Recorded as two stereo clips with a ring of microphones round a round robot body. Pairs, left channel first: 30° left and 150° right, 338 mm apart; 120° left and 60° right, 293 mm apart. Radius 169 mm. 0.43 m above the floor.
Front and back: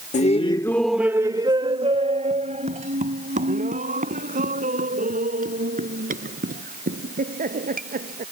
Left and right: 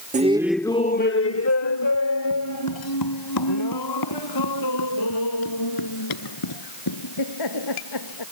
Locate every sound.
0.1 s laughter: 20° right; by 8.2 s 145° left